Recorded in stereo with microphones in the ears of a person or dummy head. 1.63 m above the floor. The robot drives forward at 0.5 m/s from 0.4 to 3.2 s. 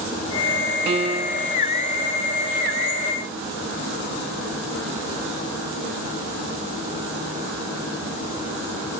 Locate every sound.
0.9 s a piano: 35° right (ahead or behind)